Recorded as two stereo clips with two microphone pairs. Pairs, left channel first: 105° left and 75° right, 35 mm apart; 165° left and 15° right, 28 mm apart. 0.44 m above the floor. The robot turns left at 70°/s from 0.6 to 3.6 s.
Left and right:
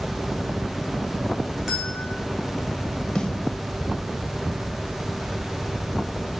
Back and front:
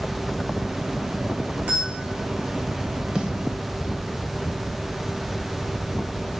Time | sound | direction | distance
1.7 | a bell | 10° left | 3 m
3.1 | a snare drum | 45° left | 0.9 m